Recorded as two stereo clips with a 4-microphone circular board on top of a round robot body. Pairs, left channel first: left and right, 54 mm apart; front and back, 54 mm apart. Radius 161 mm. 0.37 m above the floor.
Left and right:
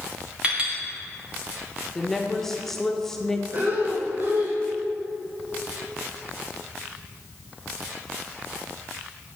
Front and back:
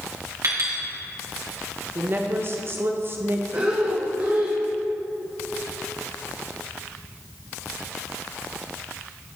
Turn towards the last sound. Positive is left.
turn(degrees=-130)